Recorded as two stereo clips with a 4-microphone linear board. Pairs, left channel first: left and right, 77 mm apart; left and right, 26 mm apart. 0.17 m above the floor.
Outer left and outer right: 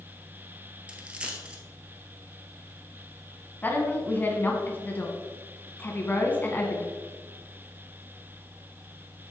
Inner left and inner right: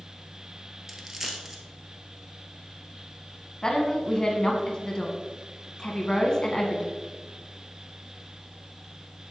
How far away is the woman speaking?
About 1.6 m.